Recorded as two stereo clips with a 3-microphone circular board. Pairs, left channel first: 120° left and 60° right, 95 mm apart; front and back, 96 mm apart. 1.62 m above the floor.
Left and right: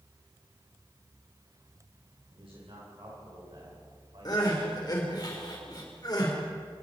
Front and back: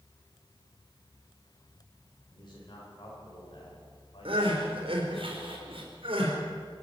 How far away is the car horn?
I don't hear a car horn.